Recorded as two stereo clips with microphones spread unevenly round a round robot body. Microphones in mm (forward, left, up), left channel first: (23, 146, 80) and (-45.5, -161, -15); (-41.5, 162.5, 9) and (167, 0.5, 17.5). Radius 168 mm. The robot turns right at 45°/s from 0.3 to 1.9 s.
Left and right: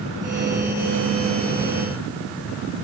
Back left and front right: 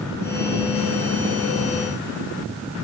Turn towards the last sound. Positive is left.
No sound to turn to.